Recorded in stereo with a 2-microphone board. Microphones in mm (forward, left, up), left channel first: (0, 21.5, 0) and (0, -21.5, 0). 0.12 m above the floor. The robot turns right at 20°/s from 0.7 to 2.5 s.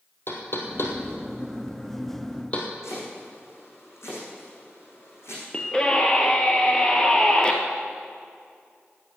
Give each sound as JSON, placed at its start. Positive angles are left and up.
{"t": 0.3, "sound": "knocking", "side_deg": 60, "distance_m": 2.5}
{"t": 2.8, "sound": "chopping", "side_deg": 75, "distance_m": 5.5}
{"t": 5.5, "sound": "a scream", "side_deg": 20, "distance_m": 2.0}